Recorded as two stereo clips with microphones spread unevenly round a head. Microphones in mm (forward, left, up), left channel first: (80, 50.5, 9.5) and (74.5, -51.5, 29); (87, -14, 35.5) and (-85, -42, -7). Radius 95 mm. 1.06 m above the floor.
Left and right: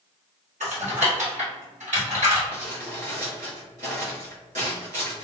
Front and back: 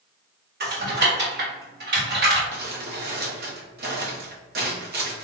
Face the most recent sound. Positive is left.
turn(degrees=-135)